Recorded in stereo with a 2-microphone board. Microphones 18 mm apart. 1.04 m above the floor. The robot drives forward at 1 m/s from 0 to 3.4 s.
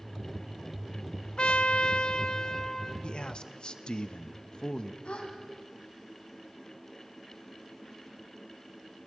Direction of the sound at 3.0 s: 60° left (ahead or behind).